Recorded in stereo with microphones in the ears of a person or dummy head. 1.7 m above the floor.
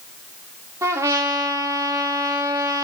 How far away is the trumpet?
About 1.7 m.